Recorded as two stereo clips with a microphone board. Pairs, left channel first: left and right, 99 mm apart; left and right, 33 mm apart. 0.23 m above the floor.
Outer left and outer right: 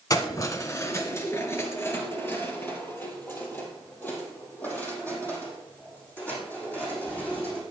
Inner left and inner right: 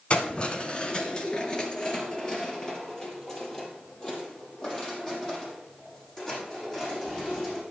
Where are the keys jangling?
40° left (ahead or behind), 1.2 m; by 7.6 s 15° left (ahead or behind), 7.5 m.